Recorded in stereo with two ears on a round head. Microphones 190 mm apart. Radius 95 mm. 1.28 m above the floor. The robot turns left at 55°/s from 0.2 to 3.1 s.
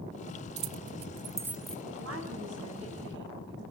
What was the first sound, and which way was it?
Keys jangling, 50° right (ahead or behind).